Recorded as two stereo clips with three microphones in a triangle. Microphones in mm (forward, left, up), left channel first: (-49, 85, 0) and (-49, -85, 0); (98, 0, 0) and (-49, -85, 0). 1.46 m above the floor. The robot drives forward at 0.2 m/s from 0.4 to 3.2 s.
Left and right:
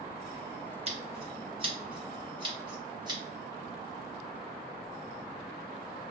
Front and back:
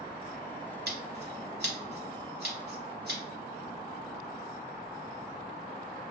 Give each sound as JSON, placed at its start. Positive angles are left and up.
{"t": 0.9, "sound": "scissors", "azimuth_deg": -145, "distance_m": 0.9}